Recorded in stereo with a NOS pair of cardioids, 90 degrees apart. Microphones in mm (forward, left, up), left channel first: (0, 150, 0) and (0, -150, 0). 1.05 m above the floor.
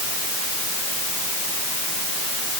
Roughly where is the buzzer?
I don't hear a buzzer.